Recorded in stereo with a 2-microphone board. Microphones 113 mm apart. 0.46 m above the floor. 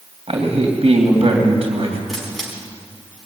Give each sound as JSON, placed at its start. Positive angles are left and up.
{"t": 0.3, "sound": "a man speaking", "side_deg": -65, "distance_m": 2.5}
{"t": 2.1, "sound": "a camera shutter", "side_deg": 0, "distance_m": 4.5}